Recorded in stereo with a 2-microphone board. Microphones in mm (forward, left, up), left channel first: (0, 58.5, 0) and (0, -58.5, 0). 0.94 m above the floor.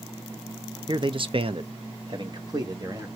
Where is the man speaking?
40° right (ahead or behind), 0.6 m; by 3.1 s 30° right (ahead or behind), 1.3 m.